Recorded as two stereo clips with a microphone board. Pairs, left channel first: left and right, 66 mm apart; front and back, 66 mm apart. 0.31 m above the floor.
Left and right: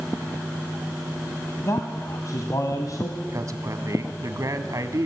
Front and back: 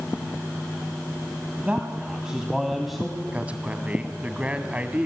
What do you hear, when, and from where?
1.6 s a man speaking: 115° left, 2.5 m; by 3.2 s 85° left, 2.5 m
3.3 s a man speaking: 110° right, 2.5 m